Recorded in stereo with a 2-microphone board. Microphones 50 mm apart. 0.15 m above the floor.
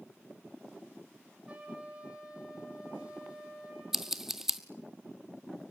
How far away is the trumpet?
About 5 m.